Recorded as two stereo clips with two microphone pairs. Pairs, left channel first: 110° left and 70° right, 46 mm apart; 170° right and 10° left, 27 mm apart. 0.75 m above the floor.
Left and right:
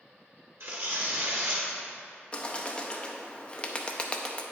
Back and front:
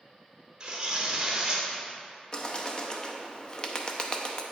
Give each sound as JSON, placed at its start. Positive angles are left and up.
{"t": 0.6, "sound": "tearing paper", "azimuth_deg": -55, "distance_m": 1.9}
{"t": 2.3, "sound": "a bird", "azimuth_deg": 155, "distance_m": 0.6}